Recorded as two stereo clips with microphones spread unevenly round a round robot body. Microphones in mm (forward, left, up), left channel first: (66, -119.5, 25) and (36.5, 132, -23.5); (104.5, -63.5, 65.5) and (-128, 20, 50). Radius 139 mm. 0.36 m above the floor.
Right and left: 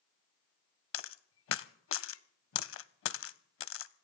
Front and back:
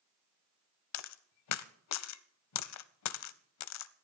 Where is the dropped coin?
40° right, 0.6 m.